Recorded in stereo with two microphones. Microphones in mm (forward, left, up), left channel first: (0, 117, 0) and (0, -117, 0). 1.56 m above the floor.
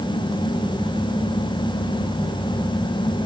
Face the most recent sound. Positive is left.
No sound to turn to.